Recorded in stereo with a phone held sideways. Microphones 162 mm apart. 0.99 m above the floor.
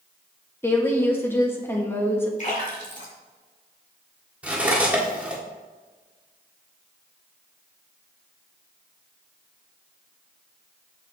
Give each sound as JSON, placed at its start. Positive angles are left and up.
{"t": 0.6, "sound": "a woman speaking", "side_deg": 15, "distance_m": 1.2}
{"t": 2.4, "sound": "a splash", "side_deg": 50, "distance_m": 1.9}
{"t": 4.4, "sound": "cutlery clinking", "side_deg": -10, "distance_m": 1.4}